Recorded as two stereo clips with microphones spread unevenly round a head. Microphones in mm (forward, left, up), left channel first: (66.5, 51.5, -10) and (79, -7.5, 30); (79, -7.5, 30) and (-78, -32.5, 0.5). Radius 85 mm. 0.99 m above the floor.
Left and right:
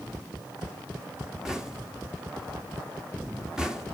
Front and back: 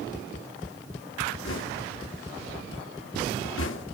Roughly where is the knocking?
Ahead.